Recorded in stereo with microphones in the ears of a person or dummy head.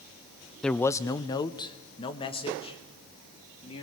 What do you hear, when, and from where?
0.6 s a man speaking: 5° left (ahead or behind), 0.5 m; by 3.8 s 30° left (ahead or behind), 3.5 m